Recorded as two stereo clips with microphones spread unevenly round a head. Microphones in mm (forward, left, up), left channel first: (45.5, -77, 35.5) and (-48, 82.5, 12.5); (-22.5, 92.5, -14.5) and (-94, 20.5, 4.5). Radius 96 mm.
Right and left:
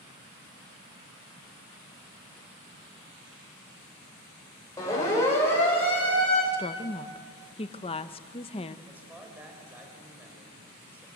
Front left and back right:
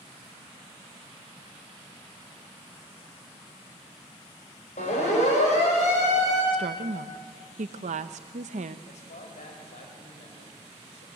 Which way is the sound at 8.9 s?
40° left.